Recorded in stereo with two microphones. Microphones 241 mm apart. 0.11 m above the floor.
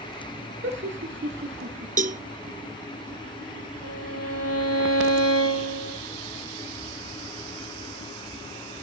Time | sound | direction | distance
0.6 | laughter | 50° right (ahead or behind) | 2 m
2.0 | a cowbell | 35° right (ahead or behind) | 0.5 m
3.8 | a violin | 80° right | 9 m